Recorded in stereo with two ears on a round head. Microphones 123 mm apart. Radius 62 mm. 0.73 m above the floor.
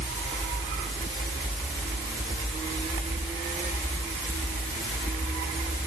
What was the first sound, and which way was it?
Only background noise.